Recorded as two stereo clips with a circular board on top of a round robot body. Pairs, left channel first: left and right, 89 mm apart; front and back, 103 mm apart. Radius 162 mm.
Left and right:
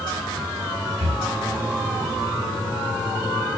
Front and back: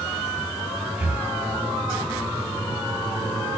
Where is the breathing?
100° right, 0.5 m.